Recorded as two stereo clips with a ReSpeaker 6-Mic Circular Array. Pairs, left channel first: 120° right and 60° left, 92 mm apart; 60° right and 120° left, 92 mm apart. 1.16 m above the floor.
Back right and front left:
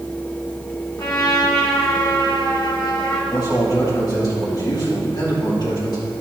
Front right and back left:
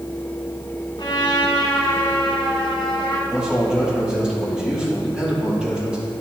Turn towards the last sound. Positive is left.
turn(degrees=-160)